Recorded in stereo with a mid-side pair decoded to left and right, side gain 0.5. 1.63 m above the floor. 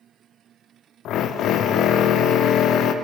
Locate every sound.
1.1 s a drill: 70° left, 0.5 m